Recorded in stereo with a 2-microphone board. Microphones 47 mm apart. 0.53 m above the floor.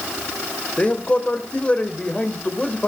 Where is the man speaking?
25° left (ahead or behind), 2 m.